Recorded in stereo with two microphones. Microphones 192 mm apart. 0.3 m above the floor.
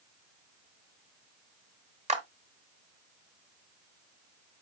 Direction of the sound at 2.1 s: 35° right (ahead or behind).